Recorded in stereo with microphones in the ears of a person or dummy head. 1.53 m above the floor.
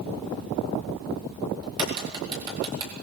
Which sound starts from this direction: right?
A crack, at 1.6 s.